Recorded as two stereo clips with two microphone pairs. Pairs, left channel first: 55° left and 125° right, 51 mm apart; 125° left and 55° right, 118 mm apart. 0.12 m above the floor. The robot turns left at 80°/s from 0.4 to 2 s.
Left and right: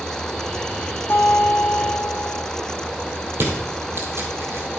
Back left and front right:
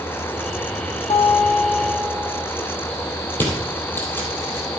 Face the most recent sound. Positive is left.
turn(degrees=-160)